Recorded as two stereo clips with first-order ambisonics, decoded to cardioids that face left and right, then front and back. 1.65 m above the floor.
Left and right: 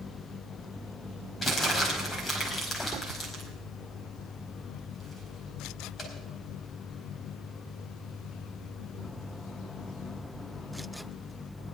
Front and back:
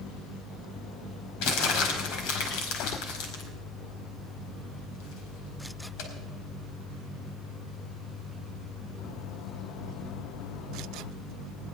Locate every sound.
1.4 s crumpling: 20° left, 4.5 m